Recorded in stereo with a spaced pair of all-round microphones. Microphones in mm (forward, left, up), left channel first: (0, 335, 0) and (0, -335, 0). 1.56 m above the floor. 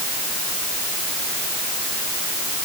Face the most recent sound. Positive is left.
No sound to turn to.